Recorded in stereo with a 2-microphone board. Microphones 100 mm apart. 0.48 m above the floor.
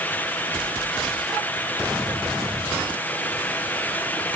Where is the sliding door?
I don't hear a sliding door.